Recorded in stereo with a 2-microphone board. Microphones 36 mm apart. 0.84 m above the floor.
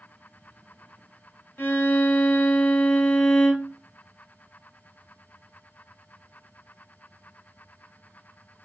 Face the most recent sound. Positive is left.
turn(degrees=75)  # may be behind; listen again after turning